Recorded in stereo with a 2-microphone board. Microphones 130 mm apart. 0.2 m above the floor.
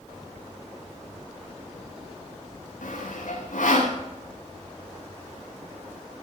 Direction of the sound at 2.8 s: 80° left.